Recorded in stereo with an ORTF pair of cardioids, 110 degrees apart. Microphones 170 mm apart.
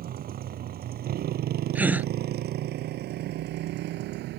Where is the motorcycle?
60° right; by 4.4 s 80° right.